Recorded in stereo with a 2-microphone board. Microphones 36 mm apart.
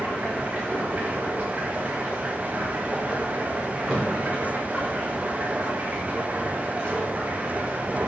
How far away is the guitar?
I don't hear a guitar.